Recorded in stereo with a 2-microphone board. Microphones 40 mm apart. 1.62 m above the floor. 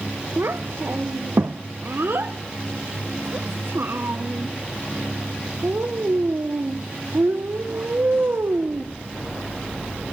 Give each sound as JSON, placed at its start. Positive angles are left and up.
{"t": 0.4, "sound": "a child speaking", "side_deg": -70, "distance_m": 1.0}